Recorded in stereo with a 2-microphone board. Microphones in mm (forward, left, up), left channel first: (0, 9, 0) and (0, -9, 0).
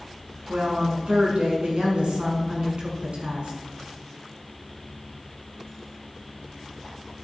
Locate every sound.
0.5 s a woman speaking: 70° right (ahead or behind), 5.5 m